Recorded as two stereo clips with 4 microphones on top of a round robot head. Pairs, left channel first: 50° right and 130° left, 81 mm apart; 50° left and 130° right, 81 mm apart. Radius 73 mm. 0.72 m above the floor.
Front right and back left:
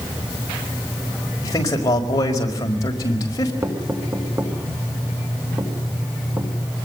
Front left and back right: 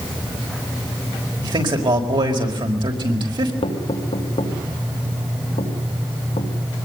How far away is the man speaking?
About 5 m.